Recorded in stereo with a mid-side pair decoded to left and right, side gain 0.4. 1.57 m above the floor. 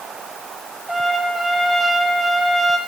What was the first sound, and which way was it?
A trumpet, 5° right.